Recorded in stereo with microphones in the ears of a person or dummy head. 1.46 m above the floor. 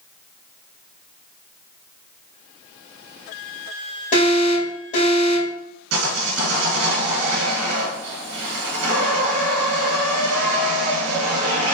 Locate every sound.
4.1 s an alarm: 40° left (ahead or behind), 1.7 m
5.9 s sawing: 80° right, 1.3 m